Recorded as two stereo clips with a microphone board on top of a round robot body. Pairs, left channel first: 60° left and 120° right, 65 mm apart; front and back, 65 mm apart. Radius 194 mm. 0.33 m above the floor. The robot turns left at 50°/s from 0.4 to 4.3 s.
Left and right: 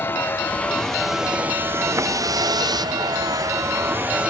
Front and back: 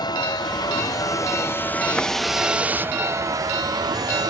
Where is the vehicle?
Straight ahead; by 4.3 s 165° left.